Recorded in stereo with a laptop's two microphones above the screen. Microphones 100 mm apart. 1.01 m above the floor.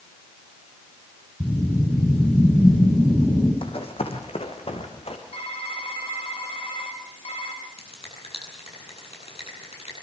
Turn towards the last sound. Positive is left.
turn(degrees=80)